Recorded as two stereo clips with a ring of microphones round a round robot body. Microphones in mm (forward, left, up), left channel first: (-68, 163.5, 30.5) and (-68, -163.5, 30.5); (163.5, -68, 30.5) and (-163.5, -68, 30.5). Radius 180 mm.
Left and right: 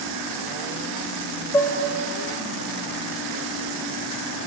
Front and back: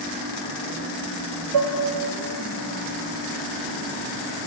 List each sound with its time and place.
1.5 s dishes clattering: 170° left, 1.7 m